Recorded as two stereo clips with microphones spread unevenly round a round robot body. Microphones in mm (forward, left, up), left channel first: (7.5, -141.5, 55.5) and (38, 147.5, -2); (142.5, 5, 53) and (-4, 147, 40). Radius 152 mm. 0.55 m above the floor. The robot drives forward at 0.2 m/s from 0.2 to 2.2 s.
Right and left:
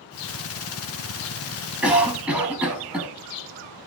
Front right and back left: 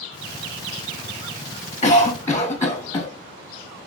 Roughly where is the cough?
Ahead.